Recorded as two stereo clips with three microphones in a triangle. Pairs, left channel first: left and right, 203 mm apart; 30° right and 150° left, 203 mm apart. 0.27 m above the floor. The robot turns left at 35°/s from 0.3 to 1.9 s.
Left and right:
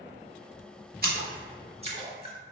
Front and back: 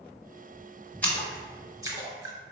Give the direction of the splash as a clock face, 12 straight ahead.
4 o'clock.